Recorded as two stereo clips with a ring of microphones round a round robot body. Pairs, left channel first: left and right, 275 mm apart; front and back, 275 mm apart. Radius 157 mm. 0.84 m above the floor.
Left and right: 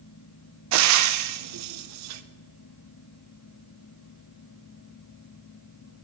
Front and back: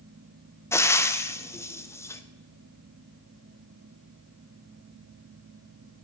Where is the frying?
80° right, 0.5 m.